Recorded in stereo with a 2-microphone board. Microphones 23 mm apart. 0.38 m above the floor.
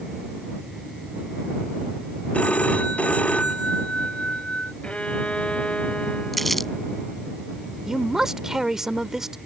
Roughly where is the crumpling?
Centre.